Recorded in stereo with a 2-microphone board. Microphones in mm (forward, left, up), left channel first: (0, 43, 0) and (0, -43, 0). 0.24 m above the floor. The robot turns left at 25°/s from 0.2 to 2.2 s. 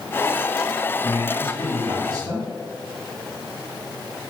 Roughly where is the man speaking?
Right.